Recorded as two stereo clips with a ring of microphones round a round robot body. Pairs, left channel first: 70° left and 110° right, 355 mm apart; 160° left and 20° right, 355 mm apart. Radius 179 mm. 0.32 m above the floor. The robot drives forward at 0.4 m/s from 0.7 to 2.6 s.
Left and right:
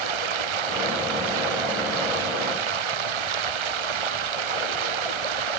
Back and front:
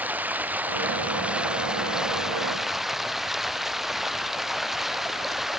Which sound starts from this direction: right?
Running water, at 0.0 s.